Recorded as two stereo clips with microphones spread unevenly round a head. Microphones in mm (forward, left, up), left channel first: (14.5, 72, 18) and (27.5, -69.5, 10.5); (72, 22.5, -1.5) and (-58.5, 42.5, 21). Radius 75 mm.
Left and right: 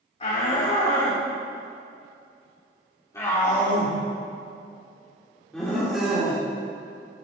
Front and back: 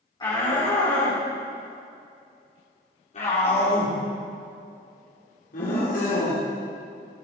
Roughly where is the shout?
Ahead left.